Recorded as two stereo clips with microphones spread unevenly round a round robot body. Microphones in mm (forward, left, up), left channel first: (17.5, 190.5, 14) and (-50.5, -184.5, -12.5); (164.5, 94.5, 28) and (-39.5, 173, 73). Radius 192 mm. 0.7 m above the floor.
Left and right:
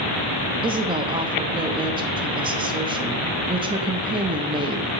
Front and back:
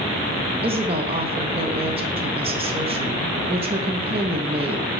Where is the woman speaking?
145° right, 1.0 m.